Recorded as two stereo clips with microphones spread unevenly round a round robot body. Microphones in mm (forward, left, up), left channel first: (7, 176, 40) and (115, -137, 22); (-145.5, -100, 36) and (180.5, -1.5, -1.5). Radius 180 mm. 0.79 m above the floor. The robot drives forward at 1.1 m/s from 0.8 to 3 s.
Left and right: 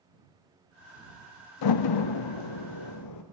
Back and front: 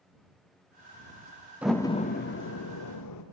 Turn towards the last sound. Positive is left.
turn(degrees=150)